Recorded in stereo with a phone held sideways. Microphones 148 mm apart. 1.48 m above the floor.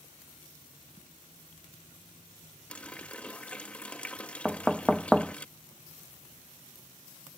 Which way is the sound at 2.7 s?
10° left (ahead or behind).